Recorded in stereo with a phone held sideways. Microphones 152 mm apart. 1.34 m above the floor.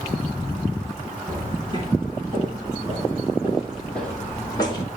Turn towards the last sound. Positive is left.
turn(degrees=35)  # may be behind; listen again after turning